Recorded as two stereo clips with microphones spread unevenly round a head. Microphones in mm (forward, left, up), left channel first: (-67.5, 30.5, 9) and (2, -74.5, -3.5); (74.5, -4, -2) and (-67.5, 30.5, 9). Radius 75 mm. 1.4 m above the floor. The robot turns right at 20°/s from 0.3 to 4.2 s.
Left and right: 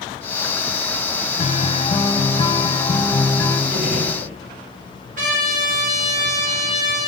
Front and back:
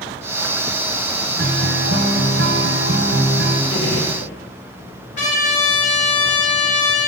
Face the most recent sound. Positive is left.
turn(degrees=-55)